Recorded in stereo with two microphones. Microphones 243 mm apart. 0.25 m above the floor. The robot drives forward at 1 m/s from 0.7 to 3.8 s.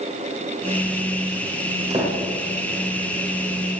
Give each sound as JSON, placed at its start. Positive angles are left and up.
{"t": 1.9, "sound": "a door slam", "side_deg": -25, "distance_m": 7.5}